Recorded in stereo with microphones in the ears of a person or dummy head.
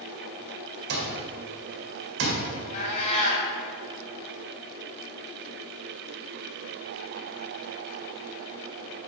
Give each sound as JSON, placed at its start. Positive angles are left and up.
{"t": 0.9, "sound": "an alarm clock", "side_deg": -70, "distance_m": 1.9}
{"t": 2.7, "sound": "a cat meowing", "side_deg": 50, "distance_m": 3.0}